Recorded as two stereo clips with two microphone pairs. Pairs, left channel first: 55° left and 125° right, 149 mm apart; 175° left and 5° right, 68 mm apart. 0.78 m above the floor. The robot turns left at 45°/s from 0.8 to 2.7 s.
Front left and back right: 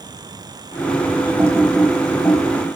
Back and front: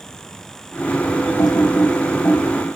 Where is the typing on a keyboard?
165° left, 4.5 m; by 2.4 s 120° left, 4.5 m.